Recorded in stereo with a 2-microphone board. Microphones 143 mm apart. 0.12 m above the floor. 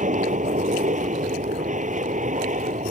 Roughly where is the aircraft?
Right.